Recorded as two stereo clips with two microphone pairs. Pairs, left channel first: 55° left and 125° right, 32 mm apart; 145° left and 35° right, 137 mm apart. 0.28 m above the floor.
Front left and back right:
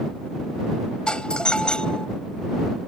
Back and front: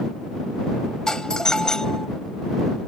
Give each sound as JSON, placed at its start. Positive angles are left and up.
{"t": 1.1, "sound": "a doorbell", "azimuth_deg": 65}